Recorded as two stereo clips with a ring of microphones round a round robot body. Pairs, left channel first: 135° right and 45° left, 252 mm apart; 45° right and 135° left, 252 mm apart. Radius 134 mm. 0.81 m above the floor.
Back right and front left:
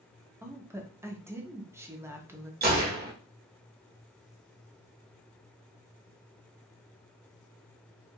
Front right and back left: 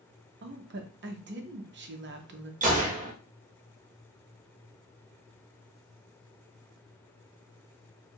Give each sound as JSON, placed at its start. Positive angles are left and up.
{"t": 0.4, "sound": "a woman speaking", "azimuth_deg": 120, "distance_m": 0.8}
{"t": 2.6, "sound": "a gunshot", "azimuth_deg": 85, "distance_m": 1.1}